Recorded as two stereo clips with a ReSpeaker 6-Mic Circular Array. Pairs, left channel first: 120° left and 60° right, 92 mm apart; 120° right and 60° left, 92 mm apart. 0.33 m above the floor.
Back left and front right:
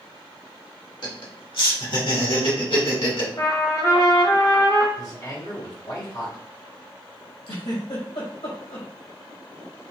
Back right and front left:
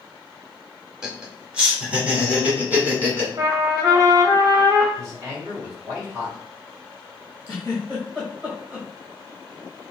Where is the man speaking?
95° left, 2 m.